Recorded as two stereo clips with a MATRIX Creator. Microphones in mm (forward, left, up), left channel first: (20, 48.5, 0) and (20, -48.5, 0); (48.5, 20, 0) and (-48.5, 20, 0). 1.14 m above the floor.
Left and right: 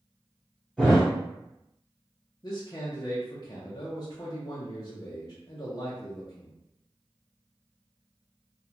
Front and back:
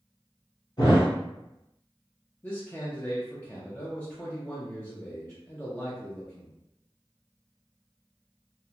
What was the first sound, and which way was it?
A thud, 5° left.